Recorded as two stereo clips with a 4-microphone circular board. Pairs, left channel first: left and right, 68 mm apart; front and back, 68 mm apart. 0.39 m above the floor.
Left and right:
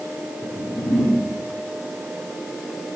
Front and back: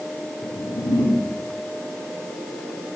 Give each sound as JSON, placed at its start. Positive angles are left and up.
{"t": 0.4, "sound": "a whoosh", "azimuth_deg": 15, "distance_m": 1.3}